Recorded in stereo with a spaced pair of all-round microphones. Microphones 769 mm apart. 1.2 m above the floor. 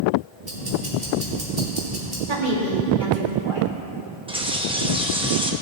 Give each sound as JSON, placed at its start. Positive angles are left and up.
{"t": 0.4, "sound": "ticking", "side_deg": -85, "distance_m": 2.5}
{"t": 2.3, "sound": "a woman speaking", "side_deg": -85, "distance_m": 2.5}
{"t": 4.3, "sound": "a bird", "side_deg": -5, "distance_m": 0.7}